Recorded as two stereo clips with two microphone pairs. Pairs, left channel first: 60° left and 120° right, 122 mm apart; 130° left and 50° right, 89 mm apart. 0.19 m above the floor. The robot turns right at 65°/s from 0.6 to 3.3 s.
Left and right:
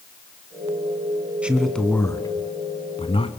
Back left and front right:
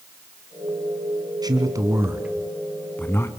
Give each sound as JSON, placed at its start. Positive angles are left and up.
{"t": 1.4, "sound": "a man speaking", "azimuth_deg": -40, "distance_m": 2.0}